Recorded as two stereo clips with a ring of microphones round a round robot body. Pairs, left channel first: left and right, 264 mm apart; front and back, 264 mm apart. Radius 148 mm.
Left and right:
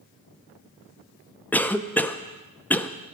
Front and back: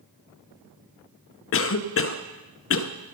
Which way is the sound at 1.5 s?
10° left.